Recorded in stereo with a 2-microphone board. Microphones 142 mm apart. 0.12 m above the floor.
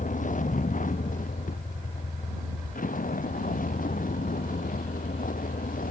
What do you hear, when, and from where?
0.0 s a vehicle: 65° left (ahead or behind); by 5.9 s 75° left (ahead or behind)